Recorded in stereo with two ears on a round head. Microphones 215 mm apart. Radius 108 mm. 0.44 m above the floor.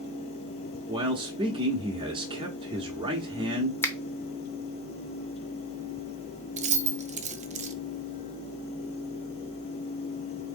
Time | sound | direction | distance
0.9 | a man speaking | 20° right (ahead or behind) | 0.8 m
3.8 | a finger snap | 10° left (ahead or behind) | 0.7 m
6.6 | keys jangling | 30° right (ahead or behind) | 0.5 m